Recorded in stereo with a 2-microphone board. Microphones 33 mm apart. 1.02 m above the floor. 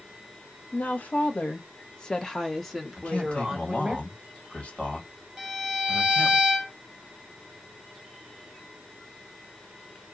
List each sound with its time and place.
0.7 s a woman speaking: 65° left (ahead or behind), 1.1 m; by 4.0 s 15° right (ahead or behind), 1.5 m
3.0 s a man speaking: 35° left (ahead or behind), 2.0 m
5.4 s a violin: 15° right (ahead or behind), 1.6 m